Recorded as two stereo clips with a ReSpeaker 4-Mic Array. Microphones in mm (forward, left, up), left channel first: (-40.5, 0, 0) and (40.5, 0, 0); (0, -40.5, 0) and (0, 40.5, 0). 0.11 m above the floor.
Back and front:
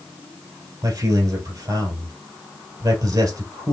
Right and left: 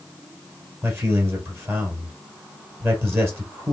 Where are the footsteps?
I don't hear footsteps.